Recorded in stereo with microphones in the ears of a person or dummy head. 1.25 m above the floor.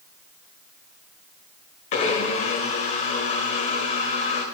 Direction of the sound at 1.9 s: 40° left (ahead or behind).